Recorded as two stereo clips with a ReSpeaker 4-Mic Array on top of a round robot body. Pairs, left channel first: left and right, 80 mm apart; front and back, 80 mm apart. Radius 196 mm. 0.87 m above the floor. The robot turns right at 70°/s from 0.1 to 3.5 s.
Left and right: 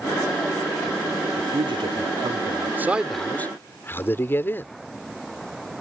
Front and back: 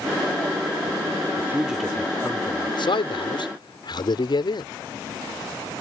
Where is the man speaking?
125° right; by 4.7 s 25° left.